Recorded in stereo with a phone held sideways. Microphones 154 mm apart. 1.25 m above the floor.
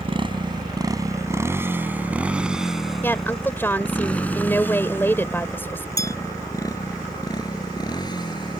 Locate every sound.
0.0 s a motorcycle: 35° right (ahead or behind); by 8.6 s 30° left (ahead or behind)
3.0 s a woman speaking: 15° left (ahead or behind)
6.0 s a bell: 80° right